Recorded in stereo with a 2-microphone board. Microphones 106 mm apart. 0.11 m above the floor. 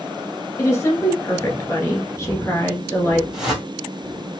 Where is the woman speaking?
25° left (ahead or behind), 1.5 m.